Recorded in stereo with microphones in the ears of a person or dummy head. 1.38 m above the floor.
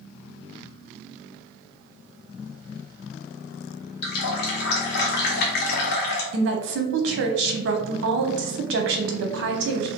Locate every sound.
4.0 s a running tap: 60° left (ahead or behind), 0.8 m
6.3 s a woman speaking: 70° right (ahead or behind), 0.7 m